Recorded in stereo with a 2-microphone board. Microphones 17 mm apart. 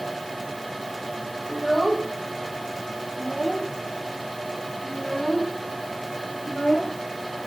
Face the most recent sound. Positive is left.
turn(degrees=60)  # may be behind; listen again after turning